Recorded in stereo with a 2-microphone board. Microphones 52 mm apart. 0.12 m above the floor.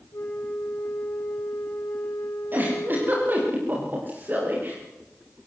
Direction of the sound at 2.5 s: 40° right (ahead or behind).